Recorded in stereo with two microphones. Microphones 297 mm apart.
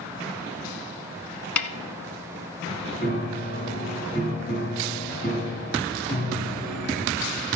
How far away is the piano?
About 3.5 m.